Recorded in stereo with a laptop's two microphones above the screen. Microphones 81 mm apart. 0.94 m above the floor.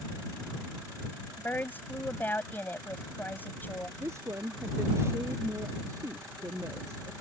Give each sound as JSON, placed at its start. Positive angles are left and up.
{"t": 1.4, "sound": "a woman speaking", "side_deg": 25}
{"t": 4.0, "sound": "a woman speaking", "side_deg": -35}